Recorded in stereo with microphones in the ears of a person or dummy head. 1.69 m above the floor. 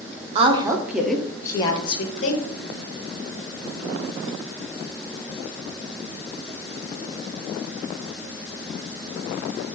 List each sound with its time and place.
0.3 s a woman speaking: 35° right (ahead or behind), 0.7 m; by 2.4 s 45° left (ahead or behind), 1.1 m